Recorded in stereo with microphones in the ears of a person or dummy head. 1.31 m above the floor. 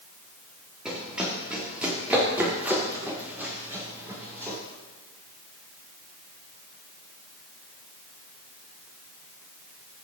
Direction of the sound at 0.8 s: 5° right (ahead or behind).